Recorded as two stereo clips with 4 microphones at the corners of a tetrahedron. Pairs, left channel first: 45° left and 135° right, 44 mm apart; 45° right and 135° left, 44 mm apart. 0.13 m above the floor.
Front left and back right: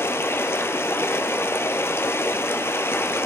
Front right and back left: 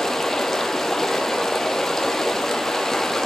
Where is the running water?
35° left, 0.9 m.